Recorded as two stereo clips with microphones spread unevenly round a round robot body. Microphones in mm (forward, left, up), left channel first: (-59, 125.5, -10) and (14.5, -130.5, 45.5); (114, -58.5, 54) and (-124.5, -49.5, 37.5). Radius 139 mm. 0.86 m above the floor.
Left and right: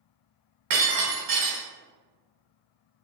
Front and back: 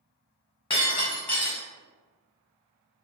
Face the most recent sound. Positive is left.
turn(degrees=-70)